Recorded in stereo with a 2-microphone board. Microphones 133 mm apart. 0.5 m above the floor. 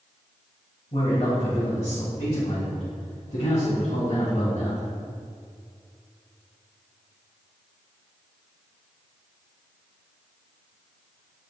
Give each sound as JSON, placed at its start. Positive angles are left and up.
{"t": 0.9, "sound": "a man speaking", "side_deg": 60, "distance_m": 1.9}